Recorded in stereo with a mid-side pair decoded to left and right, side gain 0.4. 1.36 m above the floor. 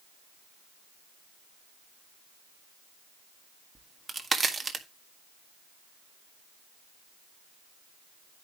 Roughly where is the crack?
Ahead right.